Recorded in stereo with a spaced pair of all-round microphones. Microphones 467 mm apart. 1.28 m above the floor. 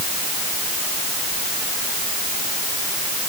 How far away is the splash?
I don't hear a splash.